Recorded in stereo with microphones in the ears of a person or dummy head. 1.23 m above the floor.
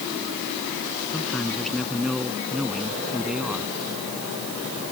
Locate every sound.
1.1 s a man speaking: centre (ahead or behind); by 3.7 s 5° right (ahead or behind)